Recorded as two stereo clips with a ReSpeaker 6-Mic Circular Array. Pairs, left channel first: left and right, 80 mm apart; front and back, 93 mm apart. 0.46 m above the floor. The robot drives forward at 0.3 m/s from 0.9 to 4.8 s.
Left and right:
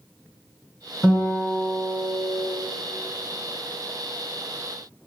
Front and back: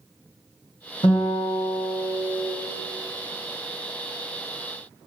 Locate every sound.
1.0 s a guitar: 5° right, 2.5 m